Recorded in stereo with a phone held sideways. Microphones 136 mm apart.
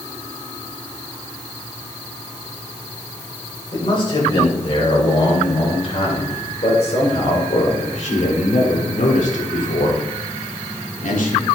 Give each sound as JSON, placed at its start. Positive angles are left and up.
{"t": 3.7, "sound": "a man speaking", "side_deg": 40, "distance_m": 6.5}